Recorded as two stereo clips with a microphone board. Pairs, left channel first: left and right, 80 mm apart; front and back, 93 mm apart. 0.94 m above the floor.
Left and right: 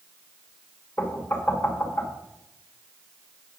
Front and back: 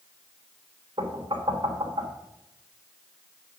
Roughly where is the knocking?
Behind left.